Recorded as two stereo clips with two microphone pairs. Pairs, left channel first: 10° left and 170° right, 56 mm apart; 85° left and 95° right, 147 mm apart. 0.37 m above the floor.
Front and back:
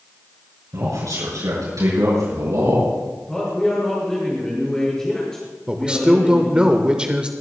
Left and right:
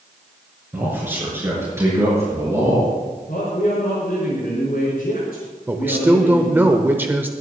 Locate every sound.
0.7 s a man speaking: 170° right, 5.5 m; by 2.9 s 165° right, 7 m
3.3 s a man speaking: 90° left, 5 m
5.7 s a man speaking: 145° right, 0.9 m